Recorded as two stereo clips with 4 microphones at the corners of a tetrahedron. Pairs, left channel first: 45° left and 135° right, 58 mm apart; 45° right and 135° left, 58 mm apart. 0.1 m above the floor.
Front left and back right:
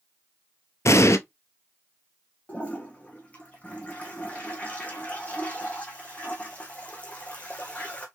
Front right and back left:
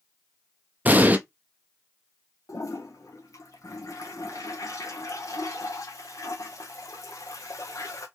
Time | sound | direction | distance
0.8 | an explosion | 75° left | 0.5 m
2.5 | a toilet flushing | 20° right | 1.1 m